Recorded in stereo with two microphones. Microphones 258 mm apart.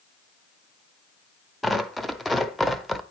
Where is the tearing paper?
Centre (ahead or behind), 0.6 m.